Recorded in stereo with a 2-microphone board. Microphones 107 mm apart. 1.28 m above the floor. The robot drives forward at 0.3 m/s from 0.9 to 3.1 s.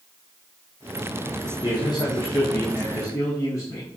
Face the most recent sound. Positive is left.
turn(degrees=30)  # may be behind; listen again after turning